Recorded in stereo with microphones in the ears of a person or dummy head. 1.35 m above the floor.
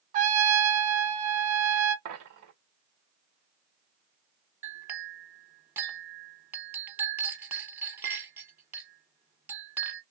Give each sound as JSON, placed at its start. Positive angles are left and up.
{"t": 0.1, "sound": "a trumpet", "side_deg": -35, "distance_m": 1.0}
{"t": 2.0, "sound": "a dropped coin", "side_deg": -50, "distance_m": 1.7}
{"t": 4.6, "sound": "a clink", "side_deg": -5, "distance_m": 1.0}